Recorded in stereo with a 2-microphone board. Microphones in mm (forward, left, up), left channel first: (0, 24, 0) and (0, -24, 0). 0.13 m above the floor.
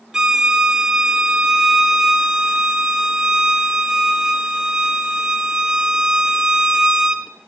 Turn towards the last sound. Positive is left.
turn(degrees=-15)  # may be behind; listen again after turning